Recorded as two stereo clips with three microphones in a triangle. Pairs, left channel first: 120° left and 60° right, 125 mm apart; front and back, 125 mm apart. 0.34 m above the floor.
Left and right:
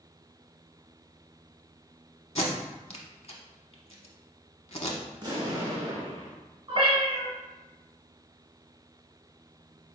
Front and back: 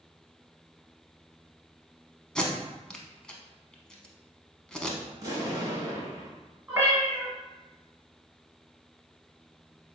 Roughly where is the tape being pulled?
Left.